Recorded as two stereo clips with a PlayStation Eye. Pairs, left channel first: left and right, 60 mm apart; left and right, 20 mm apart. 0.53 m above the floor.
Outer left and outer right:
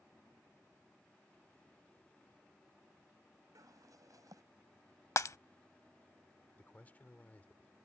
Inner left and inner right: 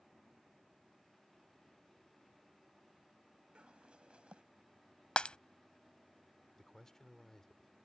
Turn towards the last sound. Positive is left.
turn(degrees=25)  # may be behind; listen again after turning